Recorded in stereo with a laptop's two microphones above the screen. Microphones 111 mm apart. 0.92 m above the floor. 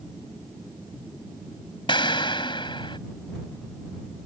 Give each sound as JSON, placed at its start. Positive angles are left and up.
{"t": 1.9, "sound": "an explosion", "side_deg": 45}